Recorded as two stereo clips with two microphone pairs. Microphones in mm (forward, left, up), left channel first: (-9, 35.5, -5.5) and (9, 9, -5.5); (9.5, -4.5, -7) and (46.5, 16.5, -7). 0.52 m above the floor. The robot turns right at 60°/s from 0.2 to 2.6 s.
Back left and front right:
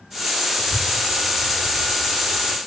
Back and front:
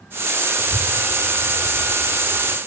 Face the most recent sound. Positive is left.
turn(degrees=30)